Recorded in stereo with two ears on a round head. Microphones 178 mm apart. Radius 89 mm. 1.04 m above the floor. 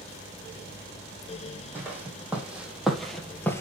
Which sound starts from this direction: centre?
Footsteps, at 1.8 s.